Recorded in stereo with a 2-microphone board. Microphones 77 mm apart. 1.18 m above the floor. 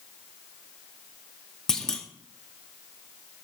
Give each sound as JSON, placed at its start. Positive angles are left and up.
{"t": 1.7, "sound": "a clunk", "side_deg": 5, "distance_m": 0.7}